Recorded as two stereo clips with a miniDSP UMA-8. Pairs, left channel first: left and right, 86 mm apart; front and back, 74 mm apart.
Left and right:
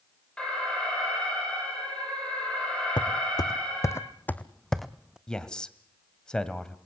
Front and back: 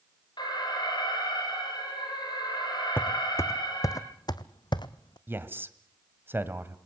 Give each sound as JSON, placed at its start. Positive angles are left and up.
{"t": 0.4, "sound": "an alarm", "azimuth_deg": 10, "distance_m": 9.0}
{"t": 3.0, "sound": "footsteps", "azimuth_deg": 60, "distance_m": 1.2}
{"t": 5.3, "sound": "a man speaking", "azimuth_deg": 160, "distance_m": 1.7}